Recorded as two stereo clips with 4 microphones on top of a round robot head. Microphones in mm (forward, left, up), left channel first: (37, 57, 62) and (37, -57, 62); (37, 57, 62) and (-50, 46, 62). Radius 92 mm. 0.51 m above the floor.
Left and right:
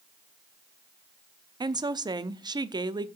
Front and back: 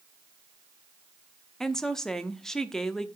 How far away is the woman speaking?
About 0.9 m.